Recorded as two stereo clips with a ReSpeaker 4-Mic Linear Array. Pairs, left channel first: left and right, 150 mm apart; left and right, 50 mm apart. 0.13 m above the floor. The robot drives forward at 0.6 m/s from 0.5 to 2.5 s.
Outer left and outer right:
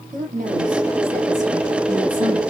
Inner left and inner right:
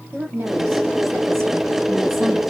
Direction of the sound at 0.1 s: 60° right (ahead or behind).